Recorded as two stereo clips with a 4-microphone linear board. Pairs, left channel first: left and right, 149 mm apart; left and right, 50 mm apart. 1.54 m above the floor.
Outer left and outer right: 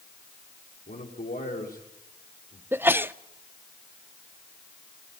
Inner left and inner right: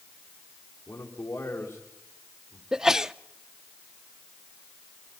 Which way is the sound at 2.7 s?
15° right (ahead or behind).